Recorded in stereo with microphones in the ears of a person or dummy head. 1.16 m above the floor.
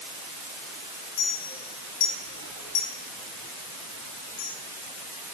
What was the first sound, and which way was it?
A clink, 80° left.